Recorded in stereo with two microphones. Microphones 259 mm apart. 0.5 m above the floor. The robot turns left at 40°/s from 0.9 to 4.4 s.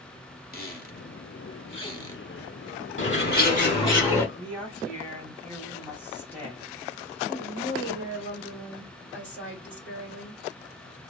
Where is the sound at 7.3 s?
45° left (ahead or behind), 1.8 m.